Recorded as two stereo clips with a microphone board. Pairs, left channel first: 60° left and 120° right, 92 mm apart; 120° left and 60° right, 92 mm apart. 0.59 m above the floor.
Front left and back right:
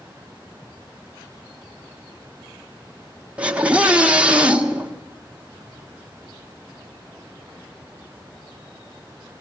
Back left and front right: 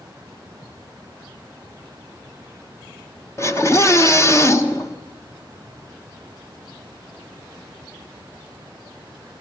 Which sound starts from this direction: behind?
A scream, at 3.4 s.